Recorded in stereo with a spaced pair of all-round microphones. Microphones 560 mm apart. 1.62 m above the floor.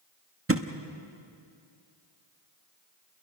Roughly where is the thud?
Right.